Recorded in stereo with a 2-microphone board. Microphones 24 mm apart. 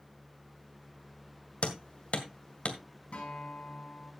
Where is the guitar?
55° left (ahead or behind), 5.5 m.